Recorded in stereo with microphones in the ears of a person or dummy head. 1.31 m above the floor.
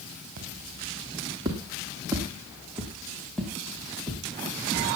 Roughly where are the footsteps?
Right.